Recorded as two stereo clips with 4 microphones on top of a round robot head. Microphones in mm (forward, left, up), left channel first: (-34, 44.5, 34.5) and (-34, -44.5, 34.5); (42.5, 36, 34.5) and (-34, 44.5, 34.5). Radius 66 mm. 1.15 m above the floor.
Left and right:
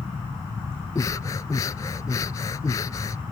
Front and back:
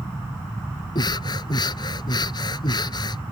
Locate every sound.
0.9 s breathing: 25° left